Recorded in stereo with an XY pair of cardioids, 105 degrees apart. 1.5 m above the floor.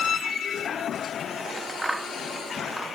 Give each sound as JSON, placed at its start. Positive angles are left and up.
{"t": 1.4, "sound": "scissors", "azimuth_deg": -15, "distance_m": 0.8}